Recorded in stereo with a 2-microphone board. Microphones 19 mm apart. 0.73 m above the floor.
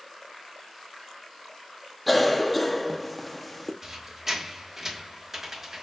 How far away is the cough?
About 0.7 m.